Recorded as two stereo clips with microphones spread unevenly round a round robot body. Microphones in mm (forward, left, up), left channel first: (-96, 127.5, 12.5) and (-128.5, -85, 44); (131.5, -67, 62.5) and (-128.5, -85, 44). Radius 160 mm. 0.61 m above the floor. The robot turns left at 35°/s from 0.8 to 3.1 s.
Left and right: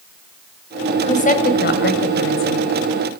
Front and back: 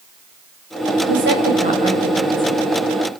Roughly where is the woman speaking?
Behind left.